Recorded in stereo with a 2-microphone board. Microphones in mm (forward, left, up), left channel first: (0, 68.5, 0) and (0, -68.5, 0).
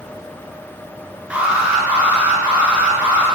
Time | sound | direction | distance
1.3 | an alarm | 10° right (ahead or behind) | 9 m